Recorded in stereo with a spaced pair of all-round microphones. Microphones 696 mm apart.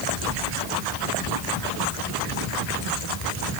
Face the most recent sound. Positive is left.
No sound to turn to.